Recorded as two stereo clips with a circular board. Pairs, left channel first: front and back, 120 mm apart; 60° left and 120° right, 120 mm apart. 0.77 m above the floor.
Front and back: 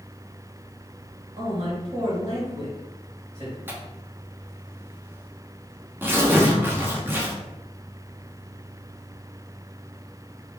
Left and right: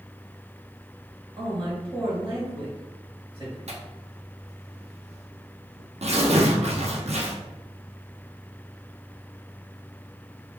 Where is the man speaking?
160° right, 1.9 m.